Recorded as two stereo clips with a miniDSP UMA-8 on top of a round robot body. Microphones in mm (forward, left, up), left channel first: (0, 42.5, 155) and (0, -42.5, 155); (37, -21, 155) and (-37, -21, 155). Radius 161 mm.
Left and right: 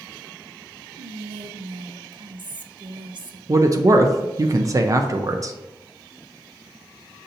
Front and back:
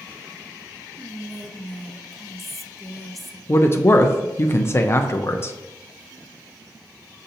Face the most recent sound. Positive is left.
turn(degrees=-50)